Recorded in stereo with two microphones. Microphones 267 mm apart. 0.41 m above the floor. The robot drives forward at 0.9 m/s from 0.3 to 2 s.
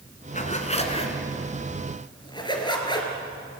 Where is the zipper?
30° left (ahead or behind), 2 m; by 3.1 s 15° left (ahead or behind), 3.5 m.